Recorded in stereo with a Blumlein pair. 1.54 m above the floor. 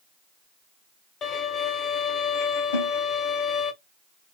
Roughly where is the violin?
Ahead left.